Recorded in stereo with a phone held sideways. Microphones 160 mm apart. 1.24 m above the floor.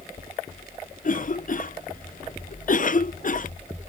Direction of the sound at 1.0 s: 55° left (ahead or behind).